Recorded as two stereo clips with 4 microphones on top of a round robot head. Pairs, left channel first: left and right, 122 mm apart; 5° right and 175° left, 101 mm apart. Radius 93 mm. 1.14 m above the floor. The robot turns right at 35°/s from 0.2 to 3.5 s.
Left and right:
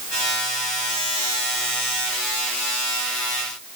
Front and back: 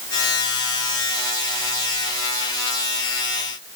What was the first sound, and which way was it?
Only background noise.